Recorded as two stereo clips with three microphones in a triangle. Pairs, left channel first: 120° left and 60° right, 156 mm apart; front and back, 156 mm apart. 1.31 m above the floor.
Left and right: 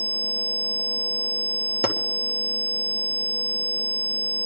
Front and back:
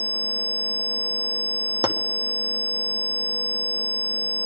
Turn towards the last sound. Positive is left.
turn(degrees=115)